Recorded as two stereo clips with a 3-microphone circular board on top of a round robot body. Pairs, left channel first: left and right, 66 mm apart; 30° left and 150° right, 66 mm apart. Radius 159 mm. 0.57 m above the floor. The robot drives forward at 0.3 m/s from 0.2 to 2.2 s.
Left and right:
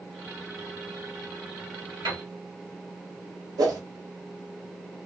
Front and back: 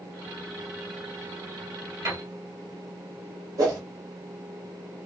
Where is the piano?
110° right, 1.4 m; by 2.2 s 115° right, 1.4 m.